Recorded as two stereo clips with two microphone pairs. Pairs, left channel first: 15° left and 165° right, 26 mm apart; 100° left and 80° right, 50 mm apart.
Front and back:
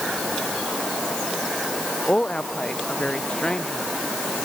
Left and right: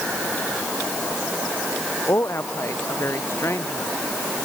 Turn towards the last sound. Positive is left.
turn(degrees=70)